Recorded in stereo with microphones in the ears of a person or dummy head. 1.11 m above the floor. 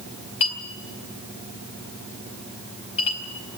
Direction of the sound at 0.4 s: 30° left (ahead or behind).